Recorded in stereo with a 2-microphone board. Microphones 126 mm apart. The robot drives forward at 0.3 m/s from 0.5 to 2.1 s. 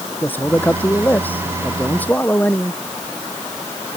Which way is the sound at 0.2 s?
15° left (ahead or behind).